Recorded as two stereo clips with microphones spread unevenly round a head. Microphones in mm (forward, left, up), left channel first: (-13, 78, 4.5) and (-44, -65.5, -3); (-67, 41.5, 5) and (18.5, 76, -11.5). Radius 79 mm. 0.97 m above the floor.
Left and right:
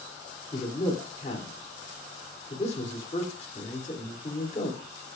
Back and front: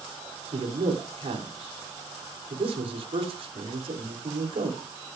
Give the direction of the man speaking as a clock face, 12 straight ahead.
11 o'clock.